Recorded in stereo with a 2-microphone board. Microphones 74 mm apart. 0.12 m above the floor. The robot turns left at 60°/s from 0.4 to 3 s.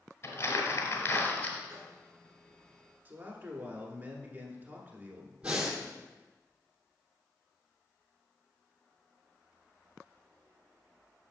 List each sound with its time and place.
0.2 s crumpling: 100° left, 1.4 m; by 1.6 s 30° left, 1.4 m
1.7 s a microwave: 40° right (ahead or behind), 1.6 m; by 2.0 s 30° right (ahead or behind), 1.6 m
3.0 s a man speaking: 30° right (ahead or behind), 1.2 m
5.4 s breathing: 15° right (ahead or behind), 1.4 m